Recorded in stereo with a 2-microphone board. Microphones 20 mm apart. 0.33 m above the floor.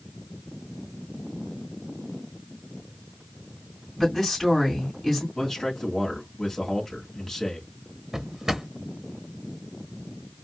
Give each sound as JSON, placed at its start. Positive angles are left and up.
{"t": 4.0, "sound": "a woman speaking", "side_deg": 10, "distance_m": 3.5}
{"t": 5.3, "sound": "a man speaking", "side_deg": 15, "distance_m": 2.5}
{"t": 8.1, "sound": "a drawer", "side_deg": -25, "distance_m": 0.7}